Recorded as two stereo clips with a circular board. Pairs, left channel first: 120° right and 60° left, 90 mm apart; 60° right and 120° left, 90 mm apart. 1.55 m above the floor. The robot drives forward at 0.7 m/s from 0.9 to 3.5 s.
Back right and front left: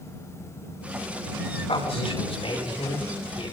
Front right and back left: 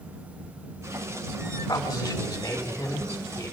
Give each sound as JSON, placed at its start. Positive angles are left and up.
{"t": 1.7, "sound": "a man speaking", "azimuth_deg": -110, "distance_m": 7.5}